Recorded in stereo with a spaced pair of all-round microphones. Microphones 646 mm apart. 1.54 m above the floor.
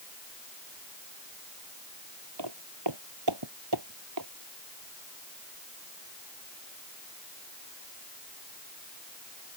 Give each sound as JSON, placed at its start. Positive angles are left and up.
{"t": 2.4, "sound": "footsteps", "side_deg": -40}